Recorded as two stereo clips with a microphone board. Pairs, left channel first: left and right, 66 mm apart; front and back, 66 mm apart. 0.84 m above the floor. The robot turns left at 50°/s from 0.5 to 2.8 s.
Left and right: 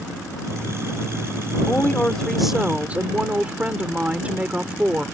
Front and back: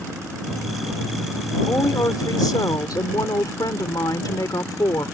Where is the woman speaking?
35° left; by 5.1 s 20° right.